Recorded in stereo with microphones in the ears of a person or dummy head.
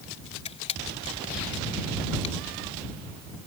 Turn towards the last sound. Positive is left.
turn(degrees=35)  # may be behind; listen again after turning